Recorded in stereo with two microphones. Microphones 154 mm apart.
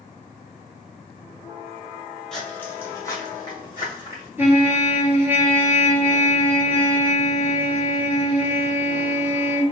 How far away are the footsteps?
About 1.3 m.